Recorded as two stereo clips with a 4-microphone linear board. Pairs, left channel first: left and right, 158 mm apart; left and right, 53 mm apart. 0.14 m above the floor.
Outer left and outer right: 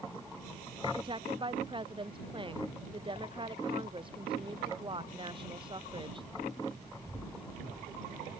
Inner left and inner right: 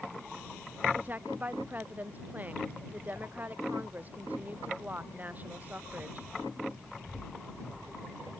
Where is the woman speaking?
30° right (ahead or behind).